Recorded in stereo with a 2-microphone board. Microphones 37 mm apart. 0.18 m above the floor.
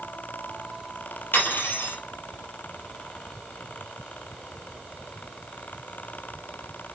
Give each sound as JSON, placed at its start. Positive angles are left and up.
{"t": 1.3, "sound": "cutlery clinking", "side_deg": 75, "distance_m": 3.0}